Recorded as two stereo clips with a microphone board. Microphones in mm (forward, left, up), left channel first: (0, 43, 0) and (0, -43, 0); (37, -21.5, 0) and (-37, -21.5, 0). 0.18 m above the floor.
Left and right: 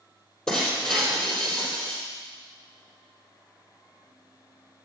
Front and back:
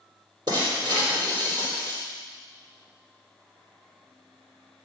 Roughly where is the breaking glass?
Behind.